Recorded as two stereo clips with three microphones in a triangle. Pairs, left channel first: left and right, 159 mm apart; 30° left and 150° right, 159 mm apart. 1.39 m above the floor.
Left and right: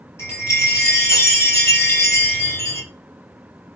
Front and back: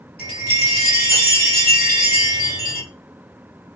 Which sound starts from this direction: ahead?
A chime, at 0.2 s.